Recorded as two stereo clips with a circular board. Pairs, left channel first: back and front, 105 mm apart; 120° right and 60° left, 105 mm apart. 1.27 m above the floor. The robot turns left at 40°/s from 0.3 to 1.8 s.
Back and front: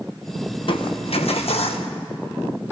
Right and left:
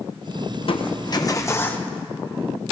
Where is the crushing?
145° right, 1.2 m; by 1.9 s 165° left, 1.2 m.